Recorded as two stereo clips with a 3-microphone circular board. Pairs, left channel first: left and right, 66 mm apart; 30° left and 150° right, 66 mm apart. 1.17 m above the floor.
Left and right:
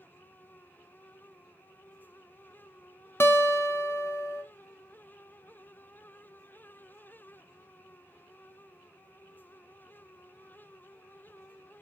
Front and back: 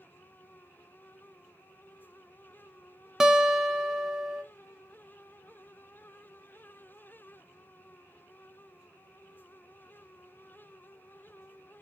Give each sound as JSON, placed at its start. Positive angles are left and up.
{"t": 3.2, "sound": "a guitar", "azimuth_deg": 130, "distance_m": 0.6}